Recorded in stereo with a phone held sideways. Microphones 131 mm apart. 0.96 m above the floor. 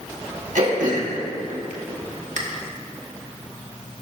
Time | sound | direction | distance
0.6 | throat clearing | 75° right (ahead or behind) | 1.6 m